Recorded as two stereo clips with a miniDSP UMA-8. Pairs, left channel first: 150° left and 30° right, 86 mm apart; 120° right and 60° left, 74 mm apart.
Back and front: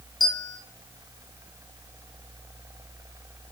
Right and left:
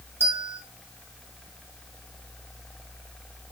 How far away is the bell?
About 1.8 m.